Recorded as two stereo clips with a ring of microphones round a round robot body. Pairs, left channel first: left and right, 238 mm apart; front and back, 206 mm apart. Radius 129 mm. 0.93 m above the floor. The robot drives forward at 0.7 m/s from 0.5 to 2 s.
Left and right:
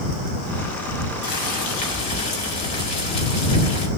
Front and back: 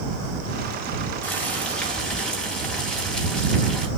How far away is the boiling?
About 5 m.